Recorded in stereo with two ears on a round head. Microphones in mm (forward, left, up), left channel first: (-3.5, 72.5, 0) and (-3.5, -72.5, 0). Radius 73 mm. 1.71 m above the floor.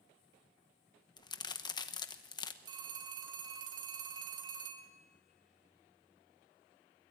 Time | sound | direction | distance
1.2 | a crack | 25° left (ahead or behind) | 1.0 m
2.6 | a phone ringing | 25° right (ahead or behind) | 2.5 m